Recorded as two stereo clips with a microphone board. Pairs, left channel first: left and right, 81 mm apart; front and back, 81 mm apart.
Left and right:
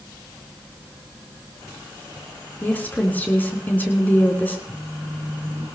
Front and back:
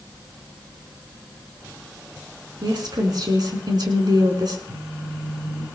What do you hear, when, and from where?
2.6 s a woman speaking: 155° left, 4 m
4.7 s a phone buzzing: 150° left, 8.5 m